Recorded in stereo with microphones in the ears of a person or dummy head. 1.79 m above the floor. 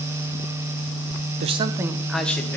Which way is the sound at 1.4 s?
40° right (ahead or behind).